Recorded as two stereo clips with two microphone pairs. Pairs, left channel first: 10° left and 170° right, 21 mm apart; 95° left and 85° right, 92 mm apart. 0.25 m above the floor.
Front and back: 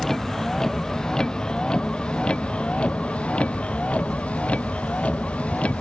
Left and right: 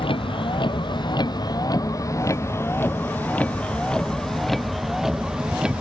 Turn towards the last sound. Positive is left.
turn(degrees=-5)